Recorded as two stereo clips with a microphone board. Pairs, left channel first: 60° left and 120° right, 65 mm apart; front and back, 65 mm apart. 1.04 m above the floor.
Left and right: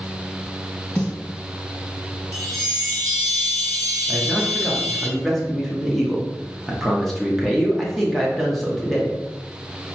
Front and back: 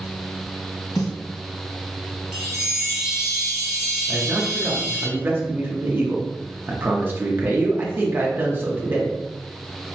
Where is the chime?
110° right, 0.9 m.